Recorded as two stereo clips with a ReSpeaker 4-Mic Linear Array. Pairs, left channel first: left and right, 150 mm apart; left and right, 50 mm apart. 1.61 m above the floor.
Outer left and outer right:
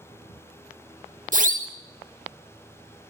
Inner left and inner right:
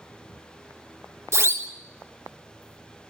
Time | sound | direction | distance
1.3 | a siren | 60° right (ahead or behind) | 2 m